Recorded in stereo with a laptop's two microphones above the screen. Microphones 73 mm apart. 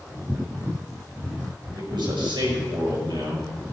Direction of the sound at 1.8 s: 85° right.